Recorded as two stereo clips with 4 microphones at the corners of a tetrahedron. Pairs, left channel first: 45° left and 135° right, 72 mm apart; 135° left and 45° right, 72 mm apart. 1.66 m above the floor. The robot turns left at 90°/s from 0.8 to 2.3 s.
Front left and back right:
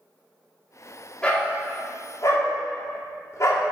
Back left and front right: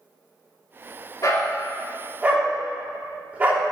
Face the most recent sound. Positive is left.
turn(degrees=20)